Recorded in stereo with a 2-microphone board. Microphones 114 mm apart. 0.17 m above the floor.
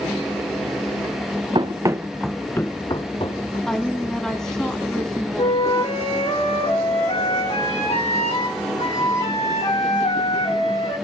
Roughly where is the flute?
Left.